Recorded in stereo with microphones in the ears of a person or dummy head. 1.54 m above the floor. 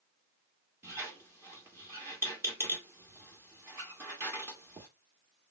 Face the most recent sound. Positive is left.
turn(degrees=-15)  # may be behind; listen again after turning